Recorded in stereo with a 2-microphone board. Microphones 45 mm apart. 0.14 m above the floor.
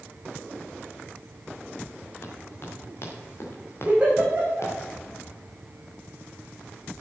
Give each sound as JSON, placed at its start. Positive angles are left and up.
{"t": 2.2, "sound": "running footsteps", "side_deg": 50, "distance_m": 6.0}
{"t": 3.9, "sound": "a giggle", "side_deg": -20, "distance_m": 5.0}